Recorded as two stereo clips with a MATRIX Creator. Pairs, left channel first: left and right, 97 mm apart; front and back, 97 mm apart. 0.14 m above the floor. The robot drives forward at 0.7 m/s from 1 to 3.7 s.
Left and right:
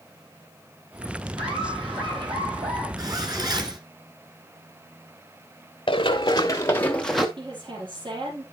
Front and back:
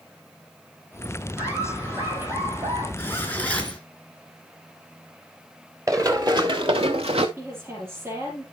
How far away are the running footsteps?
About 1.7 m.